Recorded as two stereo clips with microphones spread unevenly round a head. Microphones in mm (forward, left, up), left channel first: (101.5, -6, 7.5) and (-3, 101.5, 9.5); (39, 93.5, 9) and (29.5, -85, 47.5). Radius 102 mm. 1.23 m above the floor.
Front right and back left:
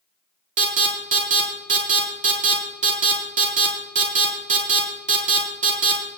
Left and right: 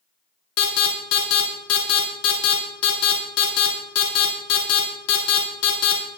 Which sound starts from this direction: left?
An alarm, at 0.6 s.